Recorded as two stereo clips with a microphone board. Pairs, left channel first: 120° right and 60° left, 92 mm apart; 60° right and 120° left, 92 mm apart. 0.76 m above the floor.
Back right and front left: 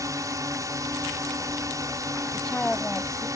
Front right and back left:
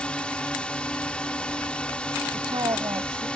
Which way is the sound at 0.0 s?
15° left.